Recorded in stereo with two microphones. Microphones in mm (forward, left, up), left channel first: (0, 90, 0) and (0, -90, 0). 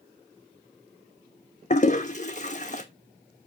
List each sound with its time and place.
1.7 s a toilet flushing: 40° left (ahead or behind), 1.2 m